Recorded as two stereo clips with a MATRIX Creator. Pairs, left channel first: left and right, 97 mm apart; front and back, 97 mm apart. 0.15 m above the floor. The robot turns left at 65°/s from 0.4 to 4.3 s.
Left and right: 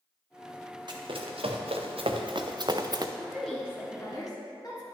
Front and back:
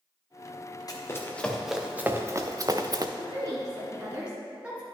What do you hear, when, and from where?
0.9 s running footsteps: 50° right, 1.6 m; by 3.1 s 135° right, 0.6 m
3.2 s a woman speaking: 175° right, 1.9 m; by 4.8 s 110° left, 1.9 m